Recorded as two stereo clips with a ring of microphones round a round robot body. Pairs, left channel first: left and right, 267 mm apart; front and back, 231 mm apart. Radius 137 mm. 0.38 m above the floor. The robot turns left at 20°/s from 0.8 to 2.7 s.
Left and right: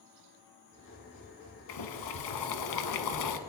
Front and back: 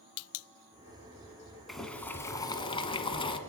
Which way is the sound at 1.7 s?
90° left.